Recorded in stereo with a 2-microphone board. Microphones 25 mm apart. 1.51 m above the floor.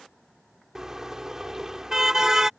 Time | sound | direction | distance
0.8 | a car horn | 20° right (ahead or behind) | ?